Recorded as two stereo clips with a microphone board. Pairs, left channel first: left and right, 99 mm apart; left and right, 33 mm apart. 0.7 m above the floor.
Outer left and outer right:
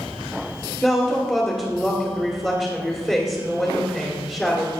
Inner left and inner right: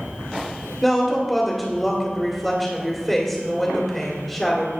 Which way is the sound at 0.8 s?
15° left (ahead or behind).